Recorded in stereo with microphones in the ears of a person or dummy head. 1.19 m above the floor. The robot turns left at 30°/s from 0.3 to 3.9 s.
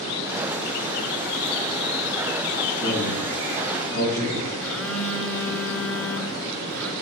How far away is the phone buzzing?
About 7 m.